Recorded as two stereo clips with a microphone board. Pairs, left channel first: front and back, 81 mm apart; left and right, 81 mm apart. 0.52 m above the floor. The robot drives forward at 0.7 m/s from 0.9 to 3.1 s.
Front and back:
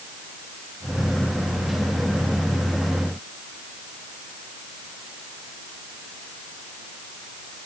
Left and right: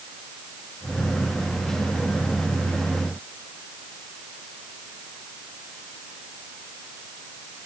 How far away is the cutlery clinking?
No cutlery clinking in this recording.